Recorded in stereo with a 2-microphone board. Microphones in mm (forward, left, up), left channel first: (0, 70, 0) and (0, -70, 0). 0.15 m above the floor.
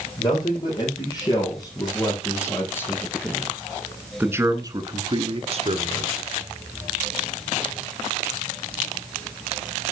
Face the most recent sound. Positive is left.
turn(degrees=-55)  # may be behind; listen again after turning